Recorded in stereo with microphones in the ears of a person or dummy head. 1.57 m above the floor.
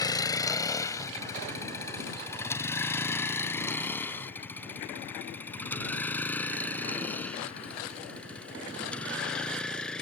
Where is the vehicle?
20° left (ahead or behind); by 10.0 s 5° left (ahead or behind).